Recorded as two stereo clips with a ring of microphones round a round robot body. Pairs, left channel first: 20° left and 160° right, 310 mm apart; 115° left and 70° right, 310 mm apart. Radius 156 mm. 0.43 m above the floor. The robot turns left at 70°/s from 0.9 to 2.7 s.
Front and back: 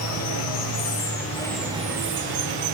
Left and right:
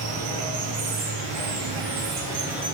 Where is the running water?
20° right, 1.1 m; by 2.7 s 145° right, 1.1 m.